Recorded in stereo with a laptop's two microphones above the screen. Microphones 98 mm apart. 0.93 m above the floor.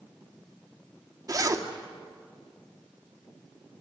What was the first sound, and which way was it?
A zipper, 35° right (ahead or behind).